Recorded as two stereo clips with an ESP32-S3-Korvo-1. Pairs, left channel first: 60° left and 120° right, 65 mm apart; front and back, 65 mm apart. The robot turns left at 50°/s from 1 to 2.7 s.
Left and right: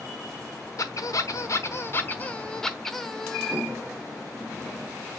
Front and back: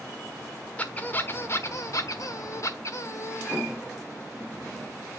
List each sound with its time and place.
0.8 s a squeak: 65° left, 1.1 m; by 3.6 s 20° right, 1.1 m